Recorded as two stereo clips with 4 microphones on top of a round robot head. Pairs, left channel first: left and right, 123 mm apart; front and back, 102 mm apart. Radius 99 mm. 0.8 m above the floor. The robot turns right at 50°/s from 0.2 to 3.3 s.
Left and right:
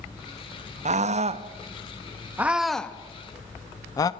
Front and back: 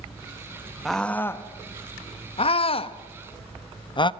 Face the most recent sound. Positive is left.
turn(degrees=30)